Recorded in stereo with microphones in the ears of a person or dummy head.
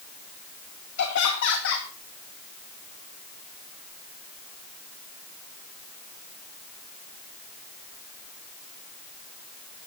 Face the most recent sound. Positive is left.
turn(degrees=75)  # may be behind; listen again after turning